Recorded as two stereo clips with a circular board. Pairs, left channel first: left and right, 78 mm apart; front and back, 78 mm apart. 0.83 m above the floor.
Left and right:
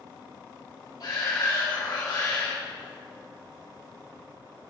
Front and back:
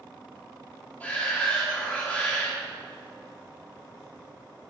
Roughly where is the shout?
Left.